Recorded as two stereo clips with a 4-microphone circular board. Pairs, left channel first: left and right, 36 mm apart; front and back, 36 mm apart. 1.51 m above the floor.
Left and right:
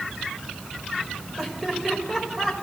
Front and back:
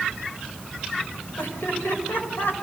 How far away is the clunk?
I don't hear a clunk.